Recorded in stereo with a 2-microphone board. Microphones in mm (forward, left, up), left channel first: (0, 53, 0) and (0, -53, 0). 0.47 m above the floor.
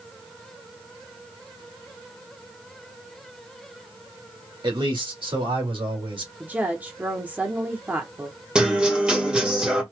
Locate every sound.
4.6 s a man speaking: 50° right (ahead or behind), 2 m; by 6.3 s 55° right (ahead or behind), 2.5 m
6.4 s a woman speaking: 15° right (ahead or behind), 1.0 m
8.6 s a guitar: 10° right (ahead or behind), 1.5 m